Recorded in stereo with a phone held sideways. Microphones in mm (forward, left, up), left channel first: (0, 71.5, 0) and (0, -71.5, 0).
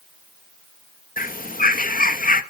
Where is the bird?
75° left (ahead or behind), 0.6 m.